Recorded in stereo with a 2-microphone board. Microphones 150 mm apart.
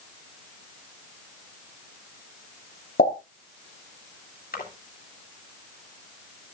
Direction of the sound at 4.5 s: 85° left.